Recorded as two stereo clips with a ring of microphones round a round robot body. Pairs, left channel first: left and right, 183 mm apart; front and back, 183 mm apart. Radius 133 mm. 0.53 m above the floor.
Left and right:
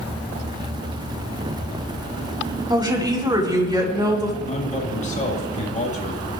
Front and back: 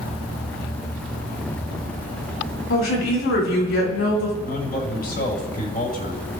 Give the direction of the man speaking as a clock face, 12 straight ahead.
11 o'clock.